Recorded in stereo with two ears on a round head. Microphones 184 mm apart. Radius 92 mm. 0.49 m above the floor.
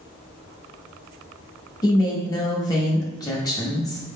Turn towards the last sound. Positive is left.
turn(degrees=20)  # may be behind; listen again after turning